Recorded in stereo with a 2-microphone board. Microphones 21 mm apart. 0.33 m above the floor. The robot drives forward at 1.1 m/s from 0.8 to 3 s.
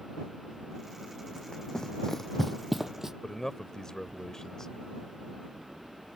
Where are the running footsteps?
40° left (ahead or behind); by 3.1 s 20° right (ahead or behind).